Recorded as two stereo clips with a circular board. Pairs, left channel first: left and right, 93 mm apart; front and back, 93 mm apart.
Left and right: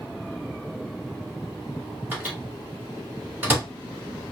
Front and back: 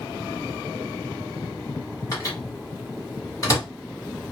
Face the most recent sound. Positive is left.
turn(degrees=-30)